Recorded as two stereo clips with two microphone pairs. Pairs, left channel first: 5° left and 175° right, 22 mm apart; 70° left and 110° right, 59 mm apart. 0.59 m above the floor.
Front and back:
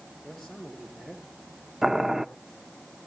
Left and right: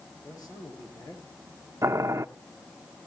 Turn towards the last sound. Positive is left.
turn(degrees=-105)